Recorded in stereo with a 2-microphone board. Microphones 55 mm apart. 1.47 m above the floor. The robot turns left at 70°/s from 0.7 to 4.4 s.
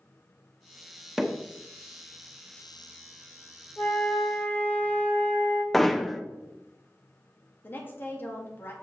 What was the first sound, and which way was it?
Hammering, 10° right (ahead or behind).